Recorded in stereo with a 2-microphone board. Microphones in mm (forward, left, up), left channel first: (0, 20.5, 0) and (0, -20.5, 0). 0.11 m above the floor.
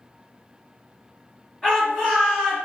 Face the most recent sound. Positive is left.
turn(degrees=5)  # may be behind; listen again after turning